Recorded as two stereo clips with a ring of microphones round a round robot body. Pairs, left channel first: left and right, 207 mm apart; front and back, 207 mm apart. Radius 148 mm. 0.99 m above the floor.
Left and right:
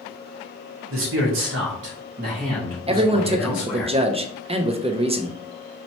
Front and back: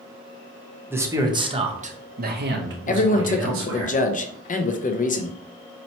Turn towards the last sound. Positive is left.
turn(degrees=-35)